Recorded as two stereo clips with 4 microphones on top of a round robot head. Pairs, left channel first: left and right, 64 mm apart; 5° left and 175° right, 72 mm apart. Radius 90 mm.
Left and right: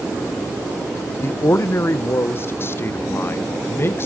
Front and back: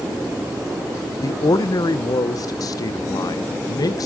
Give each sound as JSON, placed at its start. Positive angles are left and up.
{"t": 1.2, "sound": "a man speaking", "azimuth_deg": 40, "distance_m": 0.9}